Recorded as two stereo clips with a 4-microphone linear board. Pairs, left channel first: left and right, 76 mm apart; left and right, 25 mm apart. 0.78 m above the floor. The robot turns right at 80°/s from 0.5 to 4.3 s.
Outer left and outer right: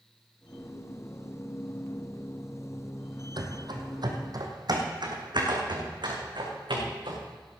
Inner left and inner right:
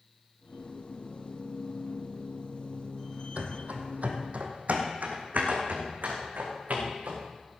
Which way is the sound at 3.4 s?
65° right (ahead or behind).